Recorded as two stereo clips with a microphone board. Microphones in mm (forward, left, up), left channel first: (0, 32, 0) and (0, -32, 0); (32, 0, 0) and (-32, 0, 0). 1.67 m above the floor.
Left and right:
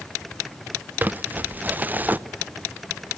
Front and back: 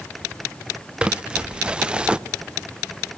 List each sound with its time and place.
1.0 s crumpling: 120° right, 0.7 m